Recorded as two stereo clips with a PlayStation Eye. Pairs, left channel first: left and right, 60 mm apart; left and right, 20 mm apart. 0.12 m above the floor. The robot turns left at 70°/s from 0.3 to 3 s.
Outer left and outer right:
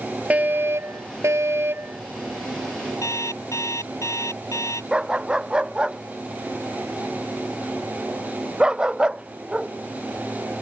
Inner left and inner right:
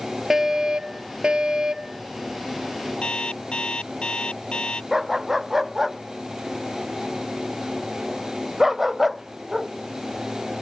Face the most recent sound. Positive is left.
turn(degrees=-15)  # may be behind; listen again after turning